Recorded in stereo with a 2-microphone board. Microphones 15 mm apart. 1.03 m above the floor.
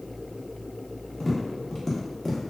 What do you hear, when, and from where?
1.2 s tapping: 20° left (ahead or behind), 0.6 m